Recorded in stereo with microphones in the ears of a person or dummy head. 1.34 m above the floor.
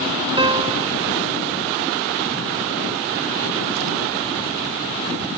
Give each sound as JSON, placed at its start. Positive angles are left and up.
{"t": 0.4, "sound": "a piano", "side_deg": -20}